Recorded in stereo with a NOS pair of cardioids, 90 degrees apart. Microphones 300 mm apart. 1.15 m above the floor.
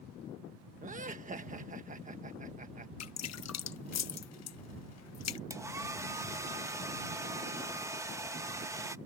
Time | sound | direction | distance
0.8 | laughter | 25° right | ?
3.0 | dripping | 60° left | ?
5.5 | a hair dryer | 10° right | ?